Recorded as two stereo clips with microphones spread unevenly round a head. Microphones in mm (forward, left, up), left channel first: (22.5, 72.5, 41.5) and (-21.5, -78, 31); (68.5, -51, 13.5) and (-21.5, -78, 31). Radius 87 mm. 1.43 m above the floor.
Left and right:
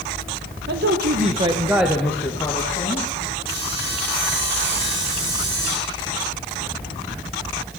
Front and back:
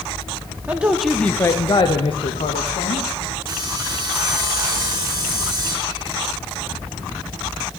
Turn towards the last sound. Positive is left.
turn(degrees=-125)